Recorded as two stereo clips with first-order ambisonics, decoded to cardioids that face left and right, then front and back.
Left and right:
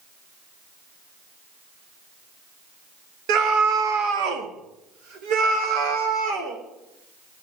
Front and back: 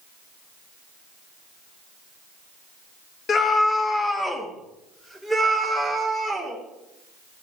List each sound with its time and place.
3.3 s a scream: 65° right, 1.3 m; by 6.6 s 95° right, 3.5 m